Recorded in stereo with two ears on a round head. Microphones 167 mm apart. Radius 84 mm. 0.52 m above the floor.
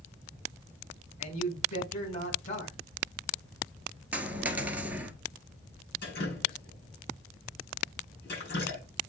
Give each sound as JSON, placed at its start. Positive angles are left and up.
{"t": 1.2, "sound": "a man speaking", "side_deg": 40, "distance_m": 5.5}
{"t": 4.1, "sound": "a dropped coin", "side_deg": -10, "distance_m": 1.2}
{"t": 6.0, "sound": "dripping", "side_deg": 60, "distance_m": 6.5}